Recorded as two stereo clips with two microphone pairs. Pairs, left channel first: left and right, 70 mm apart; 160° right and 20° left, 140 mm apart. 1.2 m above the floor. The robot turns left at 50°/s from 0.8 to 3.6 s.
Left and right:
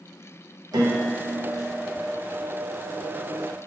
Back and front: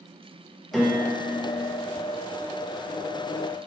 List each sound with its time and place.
0.7 s a piano: 70° right, 0.7 m; by 1.7 s 120° right, 0.7 m